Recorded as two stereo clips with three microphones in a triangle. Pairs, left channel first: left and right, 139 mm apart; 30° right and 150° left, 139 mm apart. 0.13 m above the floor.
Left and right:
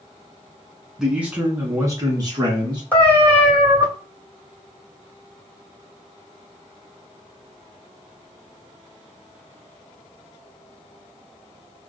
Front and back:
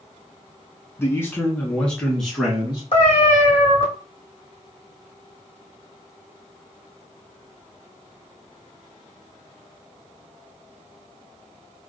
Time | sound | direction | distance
1.0 | a man speaking | 10° right | 1.0 m
2.9 | a cat meowing | 10° left | 2.0 m